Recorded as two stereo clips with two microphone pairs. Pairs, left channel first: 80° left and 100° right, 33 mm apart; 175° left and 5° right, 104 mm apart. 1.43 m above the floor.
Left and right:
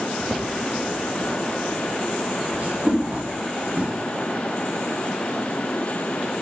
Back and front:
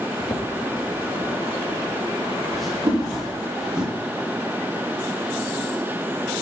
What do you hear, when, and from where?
0.2 s footsteps: 170° right, 1.7 m; by 3.9 s 85° right, 3 m
2.9 s a whoosh: 55° right, 4 m